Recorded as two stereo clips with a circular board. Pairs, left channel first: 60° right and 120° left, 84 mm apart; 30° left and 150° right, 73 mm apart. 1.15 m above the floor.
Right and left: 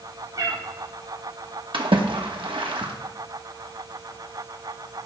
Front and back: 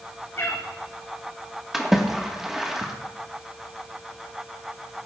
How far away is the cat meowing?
About 4 m.